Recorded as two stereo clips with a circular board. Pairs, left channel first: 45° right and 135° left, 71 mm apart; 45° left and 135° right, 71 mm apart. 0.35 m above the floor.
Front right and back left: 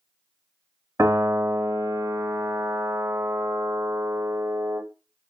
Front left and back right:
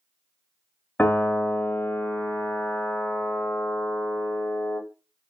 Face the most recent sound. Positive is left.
turn(degrees=110)